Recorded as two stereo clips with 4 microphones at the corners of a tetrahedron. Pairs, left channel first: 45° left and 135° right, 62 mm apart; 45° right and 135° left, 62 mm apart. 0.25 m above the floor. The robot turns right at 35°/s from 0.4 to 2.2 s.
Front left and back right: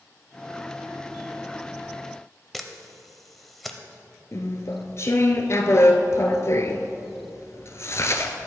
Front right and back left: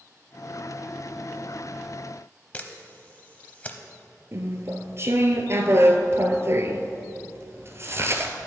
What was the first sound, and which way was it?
A camera shutter, 40° right.